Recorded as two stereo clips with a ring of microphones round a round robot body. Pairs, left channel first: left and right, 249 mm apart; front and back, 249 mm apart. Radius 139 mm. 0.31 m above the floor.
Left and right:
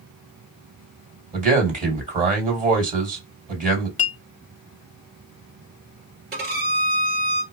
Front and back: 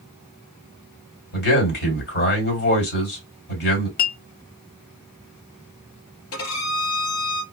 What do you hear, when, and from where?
1.3 s a man speaking: 40° right, 2.5 m
4.0 s a clink: 40° left, 0.7 m
6.3 s a violin: 40° right, 1.8 m